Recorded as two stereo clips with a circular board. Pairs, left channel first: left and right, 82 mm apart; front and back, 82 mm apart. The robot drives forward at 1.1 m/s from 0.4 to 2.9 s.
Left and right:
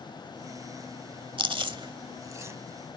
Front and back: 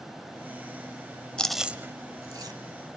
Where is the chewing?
80° right, 0.8 m; by 2.6 s 150° right, 1.4 m.